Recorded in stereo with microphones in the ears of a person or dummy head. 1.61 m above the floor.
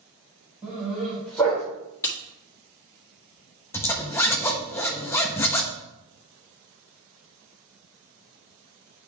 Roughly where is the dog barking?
Centre.